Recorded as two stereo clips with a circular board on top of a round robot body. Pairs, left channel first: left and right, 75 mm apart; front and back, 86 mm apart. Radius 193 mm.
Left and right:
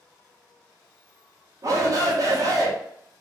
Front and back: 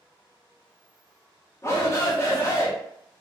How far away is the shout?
About 1.7 m.